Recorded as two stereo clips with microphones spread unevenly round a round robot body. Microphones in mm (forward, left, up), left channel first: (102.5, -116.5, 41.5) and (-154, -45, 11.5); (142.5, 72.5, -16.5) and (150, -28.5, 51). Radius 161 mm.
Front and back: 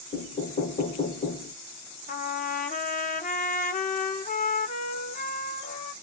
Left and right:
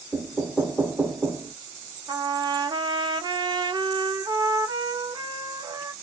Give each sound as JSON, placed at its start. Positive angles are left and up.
{"t": 0.1, "sound": "knocking", "azimuth_deg": 40, "distance_m": 0.6}
{"t": 2.1, "sound": "a trumpet", "azimuth_deg": 5, "distance_m": 0.7}